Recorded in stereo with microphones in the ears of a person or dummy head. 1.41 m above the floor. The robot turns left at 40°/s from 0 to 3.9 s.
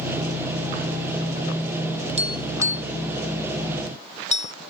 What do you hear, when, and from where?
2.2 s tapping: 35° right (ahead or behind); by 4.5 s 35° left (ahead or behind)